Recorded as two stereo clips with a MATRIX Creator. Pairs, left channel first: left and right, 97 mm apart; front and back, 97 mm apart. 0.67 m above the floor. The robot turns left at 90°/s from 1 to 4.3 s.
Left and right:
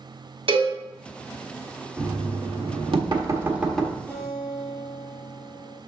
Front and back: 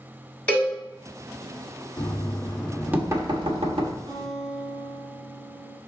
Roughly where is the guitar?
Behind.